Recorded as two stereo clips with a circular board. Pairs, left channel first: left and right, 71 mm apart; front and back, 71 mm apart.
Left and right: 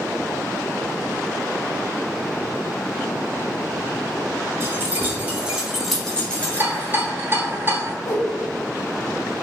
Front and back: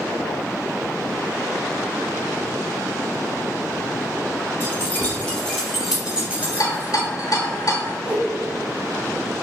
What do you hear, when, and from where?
4.6 s keys jangling: 50° right, 1.2 m; by 7.1 s 135° left, 1.2 m
6.4 s a rattle: 30° right, 0.7 m
8.1 s a whoosh: 105° left, 0.7 m